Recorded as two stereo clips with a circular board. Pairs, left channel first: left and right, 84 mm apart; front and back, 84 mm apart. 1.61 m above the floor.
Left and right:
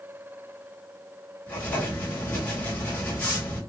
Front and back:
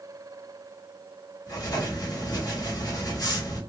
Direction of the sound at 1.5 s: 20° left.